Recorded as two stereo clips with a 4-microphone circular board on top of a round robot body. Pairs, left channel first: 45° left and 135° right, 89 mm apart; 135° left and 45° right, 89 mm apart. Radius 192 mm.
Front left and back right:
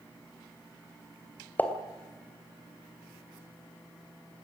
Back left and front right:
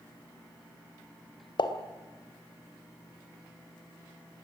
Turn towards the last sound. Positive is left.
turn(degrees=115)